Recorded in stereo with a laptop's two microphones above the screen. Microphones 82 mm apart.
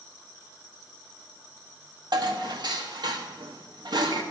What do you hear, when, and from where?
2.1 s dishes clattering: 60° right (ahead or behind), 1.0 m